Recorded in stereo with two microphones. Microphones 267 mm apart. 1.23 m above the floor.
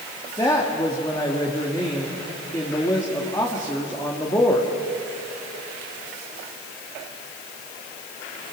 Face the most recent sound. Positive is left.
turn(degrees=15)  # may be behind; listen again after turning